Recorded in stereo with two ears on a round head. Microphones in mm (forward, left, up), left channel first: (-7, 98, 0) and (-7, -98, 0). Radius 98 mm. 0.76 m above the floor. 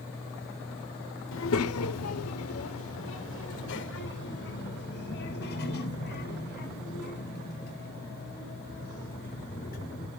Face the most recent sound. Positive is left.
turn(degrees=45)  # may be behind; listen again after turning